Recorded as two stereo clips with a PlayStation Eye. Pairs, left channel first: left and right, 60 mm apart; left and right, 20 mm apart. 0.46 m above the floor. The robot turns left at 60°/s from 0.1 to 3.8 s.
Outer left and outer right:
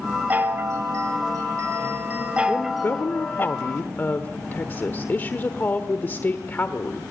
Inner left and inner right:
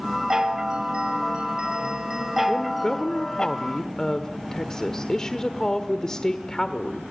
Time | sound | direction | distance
0.3 | a chime | 30° right | 1.2 m
2.5 | a woman speaking | 135° left | 1.1 m